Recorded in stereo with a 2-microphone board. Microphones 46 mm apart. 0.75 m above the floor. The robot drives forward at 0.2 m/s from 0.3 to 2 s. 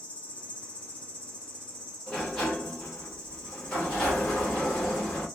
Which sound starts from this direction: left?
An insect, at 0.0 s.